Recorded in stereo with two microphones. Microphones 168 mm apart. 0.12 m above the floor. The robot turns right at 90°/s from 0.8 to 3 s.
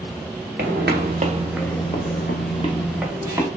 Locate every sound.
0.6 s footsteps: 75° right (ahead or behind), 0.9 m; by 3.5 s 20° right (ahead or behind), 0.9 m